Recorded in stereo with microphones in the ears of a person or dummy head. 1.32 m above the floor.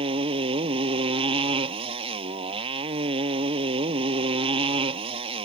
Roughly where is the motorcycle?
Right.